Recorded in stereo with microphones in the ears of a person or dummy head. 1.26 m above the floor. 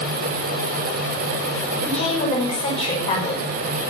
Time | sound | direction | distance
1.9 | a woman speaking | 35° left (ahead or behind) | 5.5 m